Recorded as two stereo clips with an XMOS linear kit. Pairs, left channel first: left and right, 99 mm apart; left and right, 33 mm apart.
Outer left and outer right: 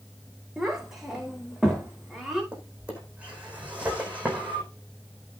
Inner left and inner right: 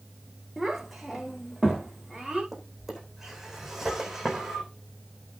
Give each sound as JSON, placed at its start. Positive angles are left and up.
{"t": 0.6, "sound": "a child speaking", "side_deg": -5, "distance_m": 4.0}
{"t": 2.5, "sound": "a drawer", "side_deg": -15, "distance_m": 4.5}